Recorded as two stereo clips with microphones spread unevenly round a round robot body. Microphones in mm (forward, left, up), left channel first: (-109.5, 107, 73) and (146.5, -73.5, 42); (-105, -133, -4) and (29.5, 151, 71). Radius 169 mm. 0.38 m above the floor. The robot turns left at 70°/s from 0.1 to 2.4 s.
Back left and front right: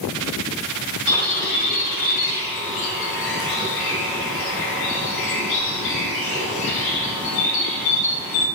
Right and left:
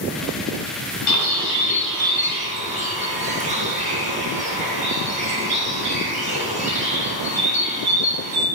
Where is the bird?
130° right, 4 m; by 8.5 s 140° left, 4 m.